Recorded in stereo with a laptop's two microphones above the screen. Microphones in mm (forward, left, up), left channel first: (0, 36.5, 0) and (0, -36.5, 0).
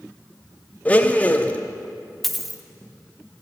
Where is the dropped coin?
Centre (ahead or behind), 0.6 m.